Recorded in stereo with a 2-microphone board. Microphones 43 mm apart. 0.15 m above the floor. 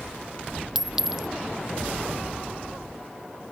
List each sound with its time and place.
0.8 s a clink: 10° right (ahead or behind)